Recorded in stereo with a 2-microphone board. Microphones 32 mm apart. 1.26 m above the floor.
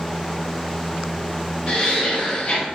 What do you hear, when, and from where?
1.7 s laughter: 30° left (ahead or behind), 0.7 m